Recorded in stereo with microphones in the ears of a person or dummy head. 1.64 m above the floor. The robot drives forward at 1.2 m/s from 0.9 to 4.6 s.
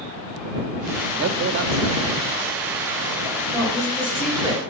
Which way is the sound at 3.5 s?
15° left (ahead or behind).